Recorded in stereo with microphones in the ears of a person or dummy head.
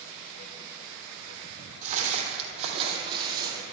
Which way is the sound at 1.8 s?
45° right (ahead or behind).